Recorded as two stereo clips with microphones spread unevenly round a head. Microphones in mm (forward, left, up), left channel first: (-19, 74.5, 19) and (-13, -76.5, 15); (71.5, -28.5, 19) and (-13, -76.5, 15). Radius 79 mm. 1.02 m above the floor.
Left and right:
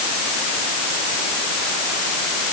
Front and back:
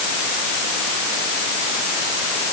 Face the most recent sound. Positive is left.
No sound to turn to.